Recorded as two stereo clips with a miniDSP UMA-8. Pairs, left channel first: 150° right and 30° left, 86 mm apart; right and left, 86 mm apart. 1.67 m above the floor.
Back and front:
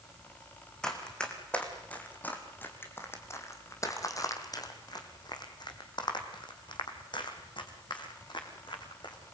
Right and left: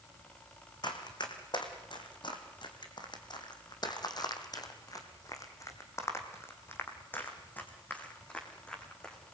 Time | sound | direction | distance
0.8 | running footsteps | 70° right | 4 m